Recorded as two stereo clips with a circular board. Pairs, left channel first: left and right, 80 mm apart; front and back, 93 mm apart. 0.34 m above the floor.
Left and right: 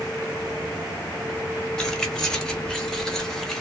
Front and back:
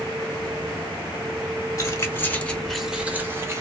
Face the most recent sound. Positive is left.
turn(degrees=175)